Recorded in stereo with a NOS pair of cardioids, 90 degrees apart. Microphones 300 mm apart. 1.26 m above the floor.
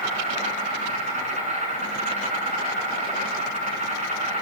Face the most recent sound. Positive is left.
turn(degrees=-25)